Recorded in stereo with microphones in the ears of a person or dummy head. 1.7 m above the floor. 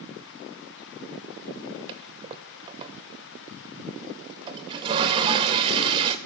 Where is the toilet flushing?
30° right (ahead or behind), 0.5 m.